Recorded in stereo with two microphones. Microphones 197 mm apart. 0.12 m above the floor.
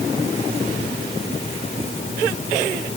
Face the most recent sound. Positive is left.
No sound to turn to.